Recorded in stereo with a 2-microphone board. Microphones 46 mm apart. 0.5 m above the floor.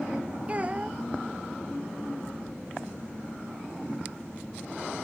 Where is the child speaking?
30° right (ahead or behind), 0.5 m.